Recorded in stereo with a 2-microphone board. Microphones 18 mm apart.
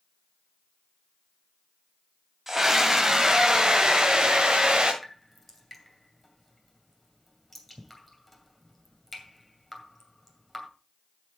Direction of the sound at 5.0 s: 5° left (ahead or behind).